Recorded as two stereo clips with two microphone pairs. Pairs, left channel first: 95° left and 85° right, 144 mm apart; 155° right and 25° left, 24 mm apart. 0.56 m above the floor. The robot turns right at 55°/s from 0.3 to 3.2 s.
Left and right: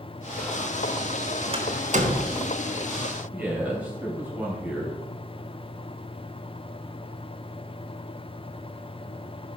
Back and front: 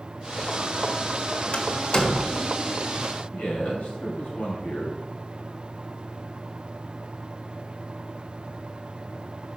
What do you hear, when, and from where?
1.5 s a door slam: 125° right, 1.0 m; by 2.4 s 75° right, 1.0 m
3.3 s a man speaking: 160° right, 2.5 m